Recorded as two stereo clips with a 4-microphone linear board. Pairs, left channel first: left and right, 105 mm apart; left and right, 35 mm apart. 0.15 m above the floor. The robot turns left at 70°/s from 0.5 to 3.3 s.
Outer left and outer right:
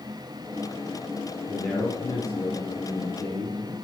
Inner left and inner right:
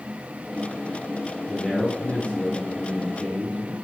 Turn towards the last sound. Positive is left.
turn(degrees=60)